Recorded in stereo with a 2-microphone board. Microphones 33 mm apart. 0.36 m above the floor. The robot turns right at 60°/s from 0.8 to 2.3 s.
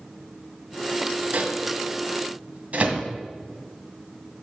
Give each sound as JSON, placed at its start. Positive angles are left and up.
{"t": 1.3, "sound": "a microwave", "side_deg": -60, "distance_m": 1.8}